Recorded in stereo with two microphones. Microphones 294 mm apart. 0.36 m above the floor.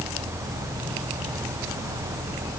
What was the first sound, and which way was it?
Only background noise.